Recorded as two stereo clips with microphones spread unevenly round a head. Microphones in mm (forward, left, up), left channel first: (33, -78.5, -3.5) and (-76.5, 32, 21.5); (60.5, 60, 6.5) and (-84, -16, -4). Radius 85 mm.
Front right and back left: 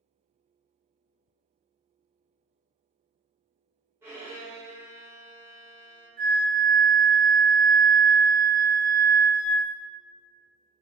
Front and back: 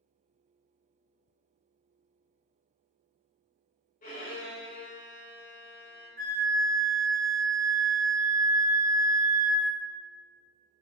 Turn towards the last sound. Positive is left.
turn(degrees=170)